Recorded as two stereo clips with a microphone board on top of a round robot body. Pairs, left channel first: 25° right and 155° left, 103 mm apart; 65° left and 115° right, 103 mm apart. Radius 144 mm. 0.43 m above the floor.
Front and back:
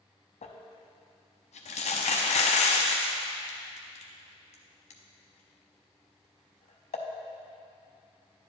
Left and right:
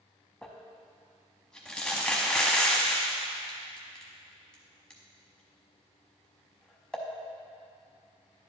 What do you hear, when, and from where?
0.4 s crumpling: 15° right, 0.5 m